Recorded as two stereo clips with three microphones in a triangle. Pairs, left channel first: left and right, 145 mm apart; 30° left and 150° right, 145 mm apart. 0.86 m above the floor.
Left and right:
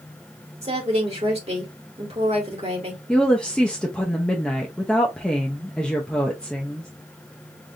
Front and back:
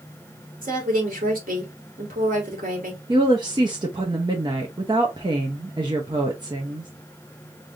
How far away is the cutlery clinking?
No cutlery clinking in this recording.